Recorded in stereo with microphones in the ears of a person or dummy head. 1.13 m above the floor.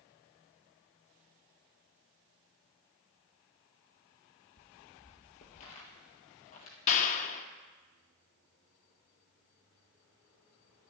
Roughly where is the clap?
Left.